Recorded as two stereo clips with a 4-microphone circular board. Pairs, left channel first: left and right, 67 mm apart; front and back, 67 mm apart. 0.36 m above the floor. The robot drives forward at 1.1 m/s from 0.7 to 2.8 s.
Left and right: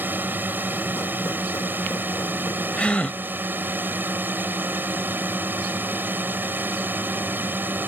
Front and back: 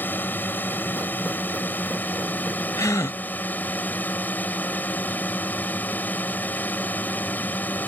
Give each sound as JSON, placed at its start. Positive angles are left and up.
{"t": 0.0, "sound": "a drone", "azimuth_deg": -45}
{"t": 2.8, "sound": "a gasp", "azimuth_deg": 20}